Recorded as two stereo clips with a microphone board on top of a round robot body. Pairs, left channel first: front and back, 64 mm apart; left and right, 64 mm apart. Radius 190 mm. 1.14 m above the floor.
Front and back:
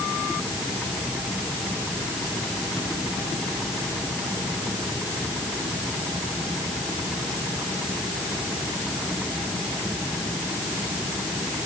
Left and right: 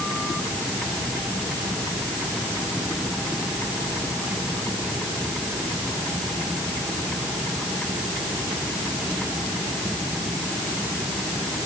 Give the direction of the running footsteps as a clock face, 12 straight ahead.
No running footsteps in this recording.